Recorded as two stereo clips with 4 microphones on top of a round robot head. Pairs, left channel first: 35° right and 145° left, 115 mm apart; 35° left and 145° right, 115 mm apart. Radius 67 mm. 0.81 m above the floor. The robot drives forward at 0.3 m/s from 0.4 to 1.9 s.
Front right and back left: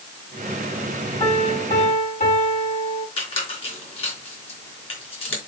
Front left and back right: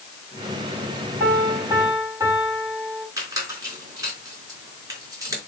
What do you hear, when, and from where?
1.2 s a piano: 75° right, 8 m
3.2 s a squeak: 80° right, 4 m